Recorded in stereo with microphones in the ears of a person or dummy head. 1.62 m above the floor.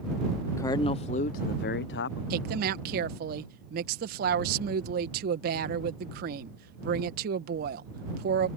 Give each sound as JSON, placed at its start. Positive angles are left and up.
{"t": 0.6, "sound": "a man speaking", "side_deg": 20}
{"t": 2.3, "sound": "a woman speaking", "side_deg": -60}